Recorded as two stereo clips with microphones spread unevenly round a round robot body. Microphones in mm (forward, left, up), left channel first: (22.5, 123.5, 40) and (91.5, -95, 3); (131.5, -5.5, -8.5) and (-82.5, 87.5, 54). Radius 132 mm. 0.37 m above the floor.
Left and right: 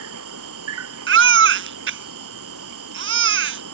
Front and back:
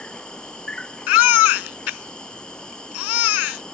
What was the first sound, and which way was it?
An insect, 110° right.